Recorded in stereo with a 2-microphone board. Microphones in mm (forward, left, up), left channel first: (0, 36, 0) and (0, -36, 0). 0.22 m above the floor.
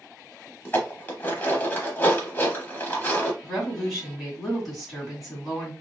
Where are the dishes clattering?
25° left (ahead or behind), 0.8 m.